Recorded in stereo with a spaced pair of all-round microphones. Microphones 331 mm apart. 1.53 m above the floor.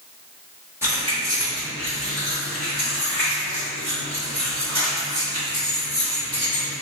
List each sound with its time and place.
0.8 s keys jangling: 10° right (ahead or behind), 1.1 m; by 6.7 s 80° right, 4 m